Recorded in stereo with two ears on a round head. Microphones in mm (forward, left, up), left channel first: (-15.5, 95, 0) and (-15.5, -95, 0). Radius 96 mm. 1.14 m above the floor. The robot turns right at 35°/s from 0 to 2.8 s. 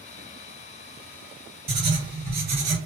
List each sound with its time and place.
1.7 s writing: 150° right, 1.4 m; by 2.8 s 110° right, 1.4 m